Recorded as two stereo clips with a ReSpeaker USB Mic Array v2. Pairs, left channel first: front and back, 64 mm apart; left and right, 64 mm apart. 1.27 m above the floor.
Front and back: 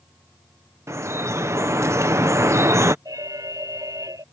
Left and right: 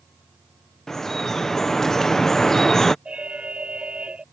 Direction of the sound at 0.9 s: 170° left.